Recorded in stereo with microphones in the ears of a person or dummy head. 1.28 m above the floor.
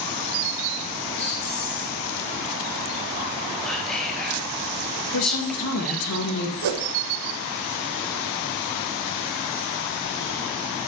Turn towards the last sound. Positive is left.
turn(degrees=-75)  # may be behind; listen again after turning